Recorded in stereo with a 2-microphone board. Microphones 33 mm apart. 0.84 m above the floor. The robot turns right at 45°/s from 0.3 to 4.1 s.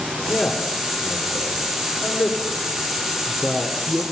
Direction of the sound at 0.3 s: 15° left (ahead or behind).